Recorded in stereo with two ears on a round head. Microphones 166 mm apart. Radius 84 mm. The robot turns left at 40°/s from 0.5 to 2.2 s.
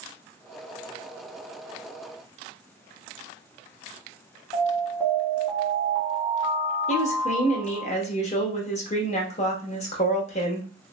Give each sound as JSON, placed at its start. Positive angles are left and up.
{"t": 4.5, "sound": "an alarm", "side_deg": 25, "distance_m": 1.0}
{"t": 6.9, "sound": "a woman speaking", "side_deg": 35, "distance_m": 0.7}